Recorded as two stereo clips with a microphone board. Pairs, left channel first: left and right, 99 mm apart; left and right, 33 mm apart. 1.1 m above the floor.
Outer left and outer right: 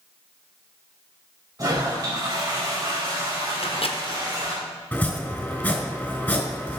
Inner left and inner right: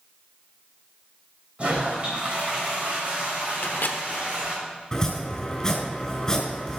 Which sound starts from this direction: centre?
Chopping, at 4.9 s.